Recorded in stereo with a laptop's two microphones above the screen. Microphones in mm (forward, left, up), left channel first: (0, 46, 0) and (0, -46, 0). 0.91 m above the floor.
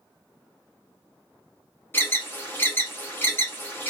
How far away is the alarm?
About 1.0 m.